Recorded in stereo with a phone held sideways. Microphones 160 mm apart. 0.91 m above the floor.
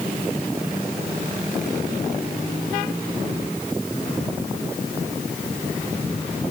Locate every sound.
Only background noise.